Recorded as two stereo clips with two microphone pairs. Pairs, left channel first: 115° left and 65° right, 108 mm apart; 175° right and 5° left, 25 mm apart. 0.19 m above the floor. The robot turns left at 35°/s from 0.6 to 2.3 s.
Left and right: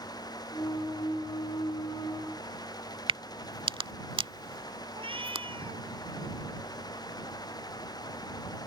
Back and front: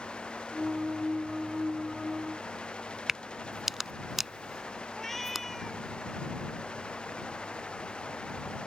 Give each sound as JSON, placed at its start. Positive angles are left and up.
{"t": 3.1, "sound": "a crack", "azimuth_deg": -70}
{"t": 4.9, "sound": "a cat meowing", "azimuth_deg": -95}